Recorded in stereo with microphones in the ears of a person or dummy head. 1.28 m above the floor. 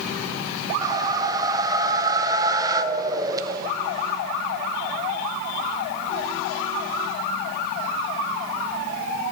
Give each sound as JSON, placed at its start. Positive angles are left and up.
{"t": 0.8, "sound": "a whoosh", "side_deg": -20, "distance_m": 0.5}